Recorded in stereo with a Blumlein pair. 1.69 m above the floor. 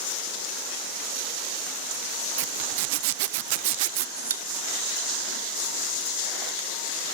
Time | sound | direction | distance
2.4 | a zipper | 50° right | 0.5 m
4.2 | a pop | 65° right | 1.3 m